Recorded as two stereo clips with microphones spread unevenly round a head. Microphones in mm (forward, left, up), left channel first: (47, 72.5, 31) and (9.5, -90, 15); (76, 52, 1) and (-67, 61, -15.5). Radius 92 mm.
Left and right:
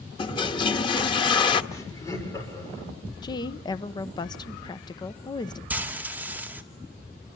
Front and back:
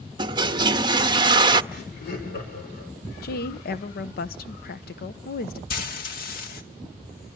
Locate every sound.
0.2 s a toilet flushing: 125° left, 0.9 m
1.7 s laughter: 5° left, 6.5 m
3.2 s a woman speaking: 10° left, 1.0 m
5.7 s frying: 20° right, 2 m